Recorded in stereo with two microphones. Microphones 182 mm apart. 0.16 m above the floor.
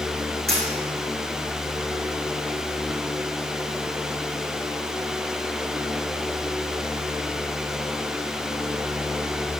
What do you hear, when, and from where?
0.5 s a dropped coin: 60° right (ahead or behind), 2.5 m